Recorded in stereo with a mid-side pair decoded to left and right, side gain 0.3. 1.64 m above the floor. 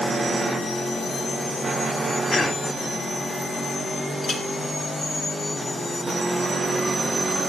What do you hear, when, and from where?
2.3 s a cough: 45° left, 4 m
4.2 s a clink: 55° left, 3 m